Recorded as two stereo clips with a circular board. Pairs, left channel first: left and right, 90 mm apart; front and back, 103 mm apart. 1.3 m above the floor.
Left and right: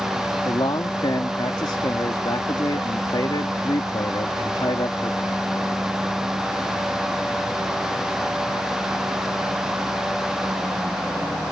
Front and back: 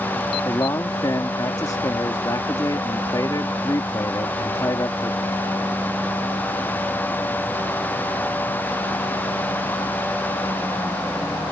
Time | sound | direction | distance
0.5 | a man speaking | 55° left | ?